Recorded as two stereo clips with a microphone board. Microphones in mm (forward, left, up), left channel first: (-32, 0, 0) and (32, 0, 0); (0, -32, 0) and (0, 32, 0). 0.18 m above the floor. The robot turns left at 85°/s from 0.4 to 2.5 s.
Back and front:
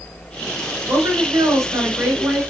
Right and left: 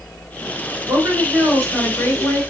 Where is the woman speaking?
50° left, 2.5 m; by 2.4 s 80° right, 2.5 m.